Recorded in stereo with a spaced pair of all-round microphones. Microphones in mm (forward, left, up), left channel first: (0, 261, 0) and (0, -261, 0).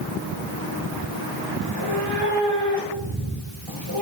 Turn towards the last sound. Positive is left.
turn(degrees=-65)  # may be behind; listen again after turning